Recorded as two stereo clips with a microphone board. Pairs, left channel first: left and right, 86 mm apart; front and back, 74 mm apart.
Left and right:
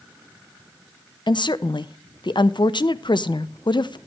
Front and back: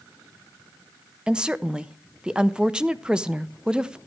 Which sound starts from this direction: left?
A woman speaking, at 1.3 s.